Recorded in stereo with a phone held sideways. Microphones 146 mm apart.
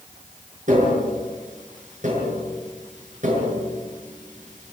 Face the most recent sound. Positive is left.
turn(degrees=-55)  # may be behind; listen again after turning